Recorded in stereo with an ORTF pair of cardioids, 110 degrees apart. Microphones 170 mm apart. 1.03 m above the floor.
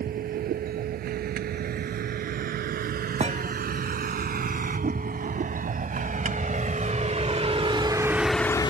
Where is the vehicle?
65° right; by 8.7 s 40° left.